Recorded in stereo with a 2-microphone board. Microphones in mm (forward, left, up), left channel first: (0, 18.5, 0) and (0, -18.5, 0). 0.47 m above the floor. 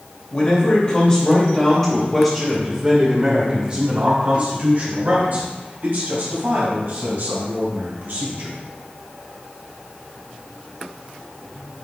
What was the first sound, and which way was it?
A man speaking, 40° left (ahead or behind).